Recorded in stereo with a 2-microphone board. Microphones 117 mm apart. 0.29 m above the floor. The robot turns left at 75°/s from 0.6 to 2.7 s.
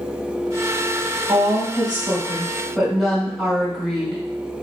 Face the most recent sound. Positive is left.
turn(degrees=-175)